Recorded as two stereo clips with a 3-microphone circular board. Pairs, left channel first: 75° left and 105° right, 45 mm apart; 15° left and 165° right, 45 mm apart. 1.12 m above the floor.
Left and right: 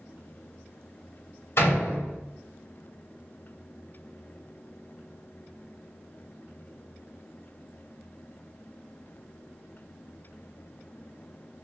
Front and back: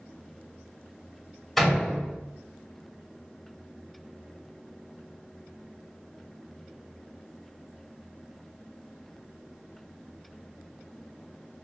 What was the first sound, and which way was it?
A door slam, 100° left.